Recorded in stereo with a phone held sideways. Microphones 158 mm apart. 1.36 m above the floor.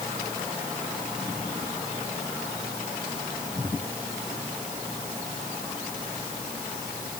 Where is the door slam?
I don't hear a door slam.